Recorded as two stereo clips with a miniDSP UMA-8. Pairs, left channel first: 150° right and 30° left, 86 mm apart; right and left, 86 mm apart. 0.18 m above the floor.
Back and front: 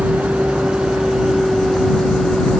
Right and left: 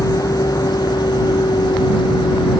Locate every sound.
0.0 s a vehicle: 45° right; by 2.6 s 65° right